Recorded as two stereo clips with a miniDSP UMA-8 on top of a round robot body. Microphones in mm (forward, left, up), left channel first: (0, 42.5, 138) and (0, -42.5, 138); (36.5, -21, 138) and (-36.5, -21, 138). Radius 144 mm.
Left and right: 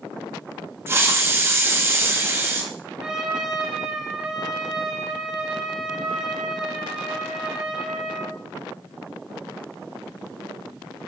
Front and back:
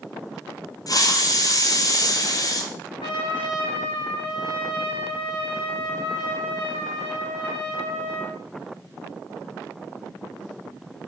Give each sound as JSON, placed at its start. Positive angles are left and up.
{"t": 0.9, "sound": "a hiss", "azimuth_deg": -30, "distance_m": 2.0}
{"t": 3.0, "sound": "a trumpet", "azimuth_deg": -10, "distance_m": 3.5}